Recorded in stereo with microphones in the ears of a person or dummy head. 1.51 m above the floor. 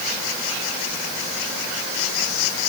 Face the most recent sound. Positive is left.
No sound to turn to.